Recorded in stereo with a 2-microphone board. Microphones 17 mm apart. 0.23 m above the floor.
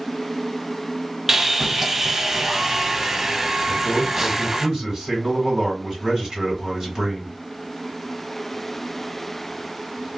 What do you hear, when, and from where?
1.3 s sawing: 20° right (ahead or behind), 0.5 m
3.7 s a man speaking: 40° right (ahead or behind), 2.0 m